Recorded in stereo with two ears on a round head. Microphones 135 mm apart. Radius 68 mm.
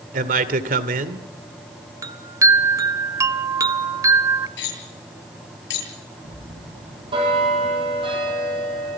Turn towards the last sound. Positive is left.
turn(degrees=-35)  # may be behind; listen again after turning